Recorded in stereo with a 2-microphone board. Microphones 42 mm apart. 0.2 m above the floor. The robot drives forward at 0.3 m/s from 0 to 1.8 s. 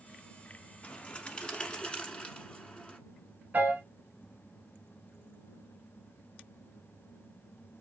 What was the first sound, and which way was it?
A bird, 30° left (ahead or behind).